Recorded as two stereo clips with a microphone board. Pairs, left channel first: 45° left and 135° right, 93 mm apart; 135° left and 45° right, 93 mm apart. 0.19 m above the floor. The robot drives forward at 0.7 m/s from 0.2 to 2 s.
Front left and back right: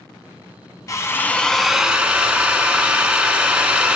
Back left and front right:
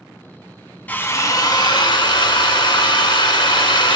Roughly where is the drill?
Left.